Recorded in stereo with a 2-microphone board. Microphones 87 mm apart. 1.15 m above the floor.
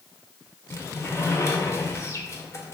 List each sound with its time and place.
0.7 s a sliding door: 35° left (ahead or behind), 1.3 m